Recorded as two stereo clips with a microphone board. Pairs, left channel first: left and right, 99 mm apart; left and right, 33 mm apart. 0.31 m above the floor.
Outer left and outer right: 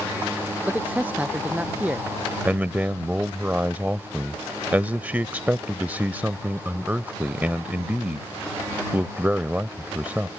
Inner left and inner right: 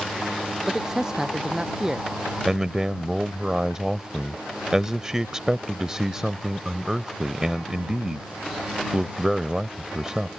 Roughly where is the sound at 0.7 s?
Centre.